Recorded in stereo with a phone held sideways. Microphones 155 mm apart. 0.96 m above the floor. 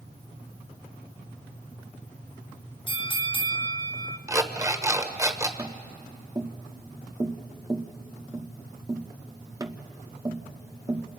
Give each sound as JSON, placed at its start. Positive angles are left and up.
{"t": 2.9, "sound": "a bell", "side_deg": 30, "distance_m": 0.7}
{"t": 4.3, "sound": "an alarm clock", "side_deg": -20, "distance_m": 1.2}
{"t": 5.6, "sound": "tapping", "side_deg": -25, "distance_m": 0.8}